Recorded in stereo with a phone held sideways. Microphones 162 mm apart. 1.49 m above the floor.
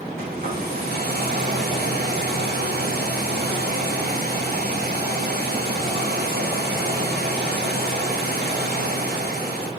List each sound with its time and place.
0.2 s a hair dryer: 75° right (ahead or behind), 1.6 m